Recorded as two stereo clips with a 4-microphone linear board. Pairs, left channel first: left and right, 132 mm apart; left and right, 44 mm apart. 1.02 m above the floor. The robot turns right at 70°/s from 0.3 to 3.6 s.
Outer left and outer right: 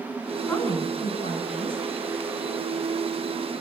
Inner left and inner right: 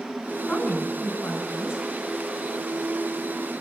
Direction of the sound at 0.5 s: 10° left.